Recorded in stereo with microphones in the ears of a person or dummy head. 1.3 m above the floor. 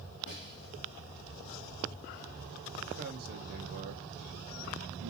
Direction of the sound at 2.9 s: 50° right (ahead or behind).